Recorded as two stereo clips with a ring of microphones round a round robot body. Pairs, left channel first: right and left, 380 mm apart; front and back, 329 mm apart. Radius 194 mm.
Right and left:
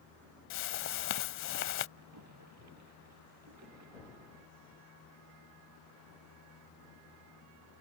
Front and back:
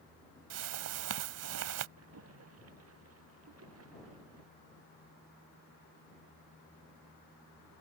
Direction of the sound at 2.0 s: 140° left.